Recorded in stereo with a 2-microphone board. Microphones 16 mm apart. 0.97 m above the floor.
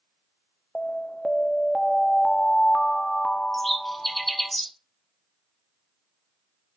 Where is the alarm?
60° left (ahead or behind), 0.8 m.